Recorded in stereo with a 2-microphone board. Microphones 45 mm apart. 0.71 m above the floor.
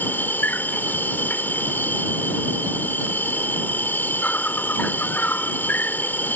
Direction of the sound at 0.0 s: 45° left (ahead or behind).